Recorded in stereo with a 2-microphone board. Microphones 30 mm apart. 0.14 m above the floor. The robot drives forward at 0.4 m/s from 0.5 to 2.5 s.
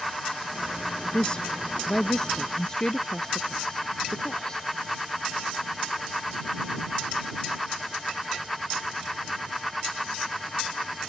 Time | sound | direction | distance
1.1 | a woman speaking | 30° left (ahead or behind) | ?